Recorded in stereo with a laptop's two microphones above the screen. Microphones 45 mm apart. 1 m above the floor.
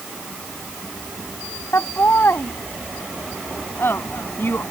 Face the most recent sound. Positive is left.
turn(degrees=55)  # may be behind; listen again after turning